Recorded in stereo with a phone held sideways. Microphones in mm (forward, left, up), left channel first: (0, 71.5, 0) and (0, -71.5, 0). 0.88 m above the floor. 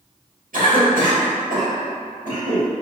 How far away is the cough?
About 1.6 m.